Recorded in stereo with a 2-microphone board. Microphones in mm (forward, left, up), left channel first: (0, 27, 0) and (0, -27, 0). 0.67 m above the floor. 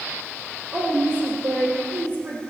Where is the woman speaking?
50° right (ahead or behind), 2.5 m.